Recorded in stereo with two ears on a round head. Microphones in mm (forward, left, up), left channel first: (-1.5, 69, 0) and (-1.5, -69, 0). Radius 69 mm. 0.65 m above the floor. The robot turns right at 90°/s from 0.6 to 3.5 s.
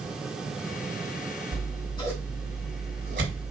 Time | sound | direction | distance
1.5 | scissors | 70° left (ahead or behind) | 1.9 m